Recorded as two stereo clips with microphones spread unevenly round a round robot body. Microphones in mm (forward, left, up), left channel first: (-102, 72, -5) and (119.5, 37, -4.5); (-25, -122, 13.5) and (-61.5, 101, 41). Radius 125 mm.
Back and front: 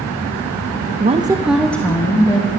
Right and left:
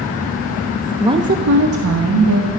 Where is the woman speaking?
15° left, 0.8 m; by 2.5 s 100° left, 2 m.